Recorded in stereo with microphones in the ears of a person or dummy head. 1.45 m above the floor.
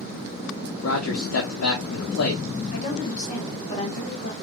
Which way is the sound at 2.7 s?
35° left (ahead or behind).